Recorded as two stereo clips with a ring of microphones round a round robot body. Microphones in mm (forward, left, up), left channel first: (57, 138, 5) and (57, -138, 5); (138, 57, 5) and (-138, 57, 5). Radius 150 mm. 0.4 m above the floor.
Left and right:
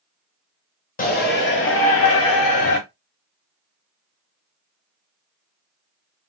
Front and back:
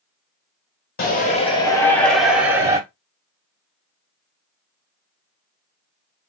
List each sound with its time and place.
1.0 s a shout: 45° left, 1.6 m; by 2.8 s 105° left, 2 m